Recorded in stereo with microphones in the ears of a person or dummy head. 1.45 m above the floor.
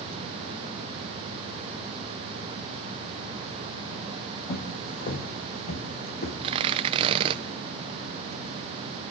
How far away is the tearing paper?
About 0.8 m.